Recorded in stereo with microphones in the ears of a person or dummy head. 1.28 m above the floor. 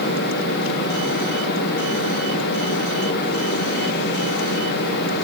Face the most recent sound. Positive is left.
No sound to turn to.